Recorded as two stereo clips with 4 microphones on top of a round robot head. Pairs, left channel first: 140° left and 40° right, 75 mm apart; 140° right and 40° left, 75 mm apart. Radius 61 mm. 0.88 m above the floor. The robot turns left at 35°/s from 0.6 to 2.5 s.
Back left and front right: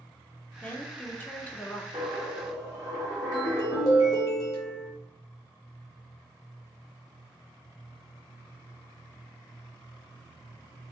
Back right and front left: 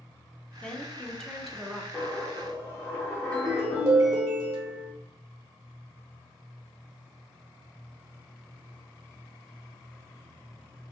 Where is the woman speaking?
165° left, 0.6 m; by 1.8 s 125° left, 0.6 m.